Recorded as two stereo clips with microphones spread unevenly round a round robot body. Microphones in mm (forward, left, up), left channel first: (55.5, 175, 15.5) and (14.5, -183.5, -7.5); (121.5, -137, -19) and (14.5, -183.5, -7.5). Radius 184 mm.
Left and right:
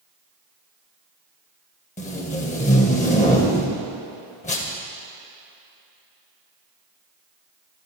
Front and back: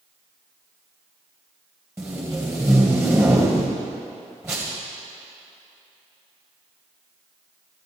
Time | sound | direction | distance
2.0 | tape being pulled | 140° left | 1.5 m